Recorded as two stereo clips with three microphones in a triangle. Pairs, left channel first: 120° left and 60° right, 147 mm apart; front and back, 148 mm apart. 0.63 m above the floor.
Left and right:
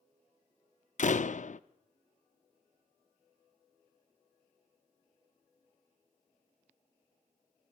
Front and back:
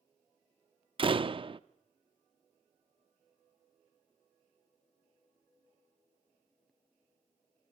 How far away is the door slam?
About 0.5 m.